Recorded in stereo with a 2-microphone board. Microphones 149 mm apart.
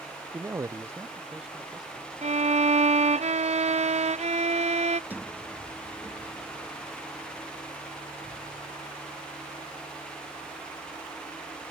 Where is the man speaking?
20° right (ahead or behind); by 2.1 s 5° right (ahead or behind).